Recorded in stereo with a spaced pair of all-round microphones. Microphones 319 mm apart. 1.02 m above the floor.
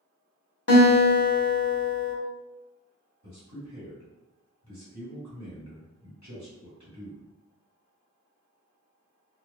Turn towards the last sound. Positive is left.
turn(degrees=-60)  # may be behind; listen again after turning